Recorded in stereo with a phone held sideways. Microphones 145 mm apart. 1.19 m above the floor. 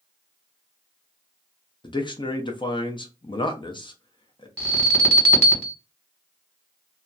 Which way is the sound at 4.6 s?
5° left (ahead or behind).